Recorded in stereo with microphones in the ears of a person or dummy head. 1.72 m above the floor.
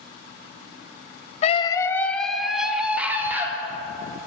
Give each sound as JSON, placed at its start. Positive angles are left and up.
{"t": 1.4, "sound": "a scream", "side_deg": 35, "distance_m": 0.8}